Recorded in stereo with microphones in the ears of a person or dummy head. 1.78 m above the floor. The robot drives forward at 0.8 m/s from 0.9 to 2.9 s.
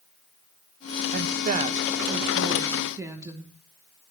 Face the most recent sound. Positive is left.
turn(degrees=-20)  # may be behind; listen again after turning